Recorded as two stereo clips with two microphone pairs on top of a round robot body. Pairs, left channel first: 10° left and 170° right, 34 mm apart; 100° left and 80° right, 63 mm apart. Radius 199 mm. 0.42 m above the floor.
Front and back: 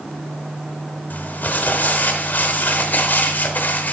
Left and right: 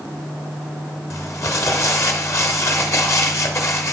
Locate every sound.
1.1 s crumpling: 55° left, 1.0 m